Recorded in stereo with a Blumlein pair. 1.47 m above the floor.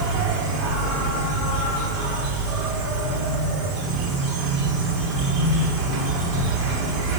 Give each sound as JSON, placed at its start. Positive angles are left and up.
{"t": 0.0, "sound": "an insect", "azimuth_deg": -30, "distance_m": 4.5}